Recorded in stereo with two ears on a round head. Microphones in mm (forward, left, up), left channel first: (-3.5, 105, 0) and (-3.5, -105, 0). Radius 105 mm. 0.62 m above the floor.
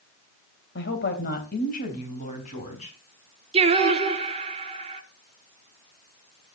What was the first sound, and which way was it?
A woman speaking, 50° left (ahead or behind).